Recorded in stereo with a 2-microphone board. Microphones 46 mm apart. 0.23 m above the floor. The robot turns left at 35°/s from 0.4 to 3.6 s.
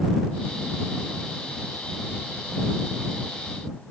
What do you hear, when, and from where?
Only background noise.